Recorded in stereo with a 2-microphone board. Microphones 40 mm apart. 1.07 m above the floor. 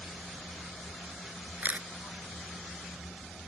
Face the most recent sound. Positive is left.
turn(degrees=-45)  # may be behind; listen again after turning